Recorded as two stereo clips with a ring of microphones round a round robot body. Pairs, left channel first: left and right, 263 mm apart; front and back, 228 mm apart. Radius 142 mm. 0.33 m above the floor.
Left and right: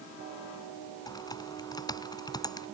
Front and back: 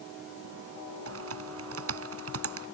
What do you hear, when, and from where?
1.1 s typing on a keyboard: 165° left